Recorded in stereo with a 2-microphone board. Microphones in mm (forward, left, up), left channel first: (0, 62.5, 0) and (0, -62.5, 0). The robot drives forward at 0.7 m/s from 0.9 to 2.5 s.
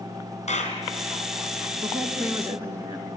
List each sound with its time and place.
0.5 s a clap: 65° left (ahead or behind), 3.5 m
1.8 s a woman speaking: 20° right (ahead or behind), 3.5 m